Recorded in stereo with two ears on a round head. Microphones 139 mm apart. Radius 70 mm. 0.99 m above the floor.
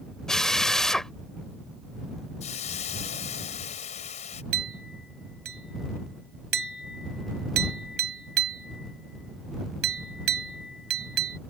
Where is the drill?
5° left (ahead or behind).